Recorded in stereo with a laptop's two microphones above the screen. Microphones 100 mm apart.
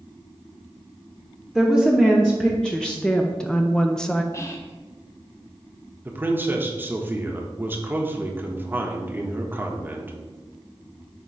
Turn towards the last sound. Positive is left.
turn(degrees=-20)  # may be behind; listen again after turning